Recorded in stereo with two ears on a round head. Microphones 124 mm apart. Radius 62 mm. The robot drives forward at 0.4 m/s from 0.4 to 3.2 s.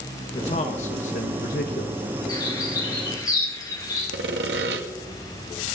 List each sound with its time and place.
0.3 s a man speaking: 45° left (ahead or behind), 1.5 m; by 2.1 s 70° left (ahead or behind), 1.1 m
2.3 s a bird: 30° left (ahead or behind), 7 m; by 4.0 s 25° left (ahead or behind), 7.5 m
4.1 s sawing: 85° right, 1.7 m